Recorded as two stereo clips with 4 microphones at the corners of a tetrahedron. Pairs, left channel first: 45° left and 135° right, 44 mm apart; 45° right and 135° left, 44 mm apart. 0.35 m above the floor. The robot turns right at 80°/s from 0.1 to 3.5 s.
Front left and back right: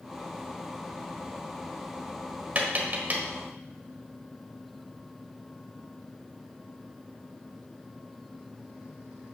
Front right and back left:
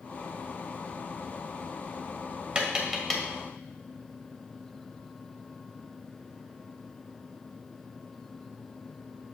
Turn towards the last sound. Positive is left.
turn(degrees=-95)